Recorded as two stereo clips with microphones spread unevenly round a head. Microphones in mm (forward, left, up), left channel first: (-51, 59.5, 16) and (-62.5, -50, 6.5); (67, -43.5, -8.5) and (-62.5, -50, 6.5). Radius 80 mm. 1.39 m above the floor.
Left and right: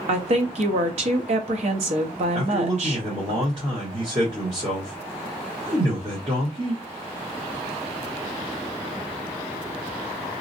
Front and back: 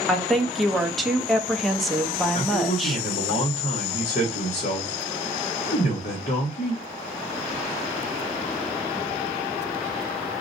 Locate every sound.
0.1 s a woman speaking: 85° right, 0.8 m
2.3 s a man speaking: 35° right, 1.1 m